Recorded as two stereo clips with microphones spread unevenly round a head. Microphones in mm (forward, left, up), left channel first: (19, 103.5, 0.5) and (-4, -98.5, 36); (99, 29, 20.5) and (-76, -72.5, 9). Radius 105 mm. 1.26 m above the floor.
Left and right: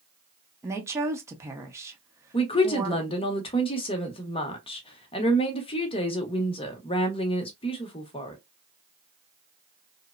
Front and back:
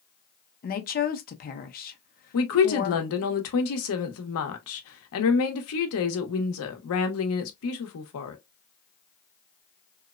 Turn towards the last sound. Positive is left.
turn(degrees=15)